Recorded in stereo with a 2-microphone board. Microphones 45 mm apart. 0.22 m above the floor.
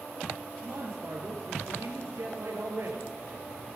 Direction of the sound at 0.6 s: 75° right (ahead or behind).